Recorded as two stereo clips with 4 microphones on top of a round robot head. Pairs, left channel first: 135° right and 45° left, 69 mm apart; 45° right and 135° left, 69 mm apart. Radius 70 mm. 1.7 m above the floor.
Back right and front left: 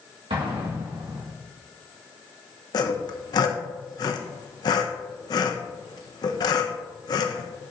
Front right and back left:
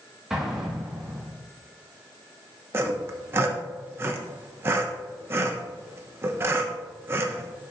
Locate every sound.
0.3 s an explosion: 55° left, 1.9 m
2.7 s sawing: 165° right, 0.7 m